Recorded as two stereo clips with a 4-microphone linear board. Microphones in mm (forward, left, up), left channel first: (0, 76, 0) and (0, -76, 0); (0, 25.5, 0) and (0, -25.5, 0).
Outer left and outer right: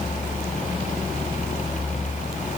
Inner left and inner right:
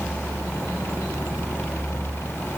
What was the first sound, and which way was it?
Only background noise.